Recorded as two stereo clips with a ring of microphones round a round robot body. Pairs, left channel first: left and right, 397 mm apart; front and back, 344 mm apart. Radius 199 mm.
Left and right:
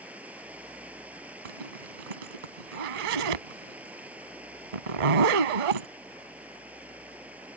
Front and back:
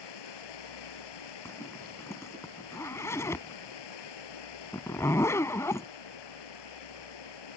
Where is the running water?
5° right.